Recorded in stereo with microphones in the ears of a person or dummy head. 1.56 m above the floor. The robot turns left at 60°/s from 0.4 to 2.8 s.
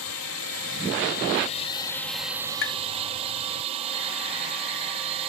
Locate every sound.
0.0 s a drone: 105° left; by 5.3 s 35° right
2.6 s tapping: 55° left (ahead or behind); by 2.8 s 65° left (ahead or behind)